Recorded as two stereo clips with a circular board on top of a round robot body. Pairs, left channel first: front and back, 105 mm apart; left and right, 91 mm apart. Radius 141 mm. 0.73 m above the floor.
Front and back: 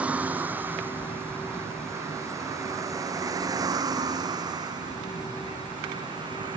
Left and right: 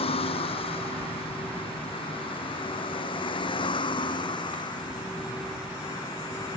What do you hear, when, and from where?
0.0 s a vehicle: 105° left; by 6.6 s 135° left